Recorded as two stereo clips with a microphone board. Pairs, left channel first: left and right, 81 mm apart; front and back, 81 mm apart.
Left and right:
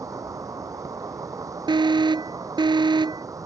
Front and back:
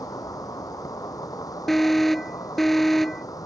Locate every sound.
0.0 s an insect: 45° right
1.7 s an alarm: 90° right